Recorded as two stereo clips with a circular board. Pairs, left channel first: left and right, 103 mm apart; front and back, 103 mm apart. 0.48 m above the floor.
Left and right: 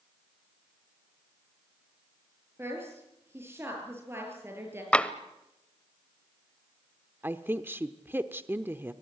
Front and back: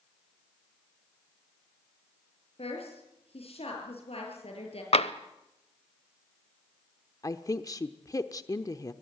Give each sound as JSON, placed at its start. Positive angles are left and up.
{"t": 2.6, "sound": "a woman speaking", "azimuth_deg": -25, "distance_m": 7.5}
{"t": 4.9, "sound": "tapping", "azimuth_deg": 10, "distance_m": 0.8}
{"t": 7.2, "sound": "a woman speaking", "azimuth_deg": -35, "distance_m": 0.9}